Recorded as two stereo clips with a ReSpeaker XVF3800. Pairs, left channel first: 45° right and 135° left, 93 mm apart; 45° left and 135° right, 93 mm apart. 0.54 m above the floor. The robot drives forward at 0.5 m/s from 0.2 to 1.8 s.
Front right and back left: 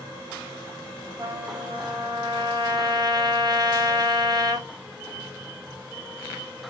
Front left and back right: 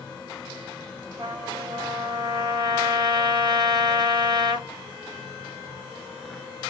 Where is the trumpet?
175° right, 1.1 m.